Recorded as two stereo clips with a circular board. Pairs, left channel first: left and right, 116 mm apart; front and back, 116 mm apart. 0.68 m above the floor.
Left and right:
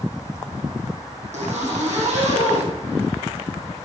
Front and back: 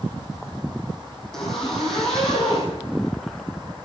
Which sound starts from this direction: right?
A zipper, at 1.3 s.